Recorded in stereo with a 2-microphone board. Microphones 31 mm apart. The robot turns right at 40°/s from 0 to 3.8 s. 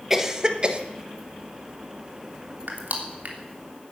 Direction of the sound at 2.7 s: 80° right.